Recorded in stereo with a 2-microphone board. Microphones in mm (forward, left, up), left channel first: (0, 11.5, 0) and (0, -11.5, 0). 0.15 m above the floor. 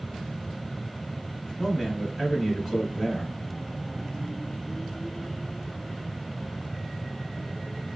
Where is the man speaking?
5° left (ahead or behind), 1.3 m.